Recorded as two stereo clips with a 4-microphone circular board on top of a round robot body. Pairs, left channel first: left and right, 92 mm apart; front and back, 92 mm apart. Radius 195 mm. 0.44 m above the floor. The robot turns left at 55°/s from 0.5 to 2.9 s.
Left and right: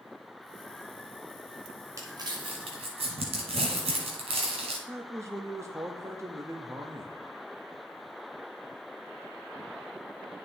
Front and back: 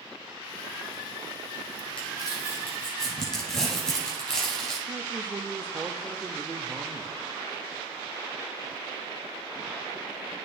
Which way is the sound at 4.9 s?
120° right.